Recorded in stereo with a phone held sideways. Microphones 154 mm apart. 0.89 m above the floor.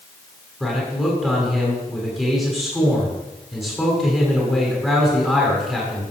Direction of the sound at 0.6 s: Centre (ahead or behind).